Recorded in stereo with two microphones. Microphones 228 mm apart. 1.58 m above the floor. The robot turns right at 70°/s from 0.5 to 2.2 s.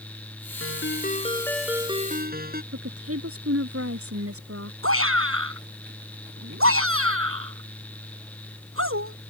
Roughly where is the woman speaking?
Right.